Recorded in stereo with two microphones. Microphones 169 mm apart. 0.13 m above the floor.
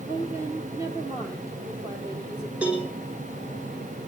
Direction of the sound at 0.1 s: 15° right (ahead or behind).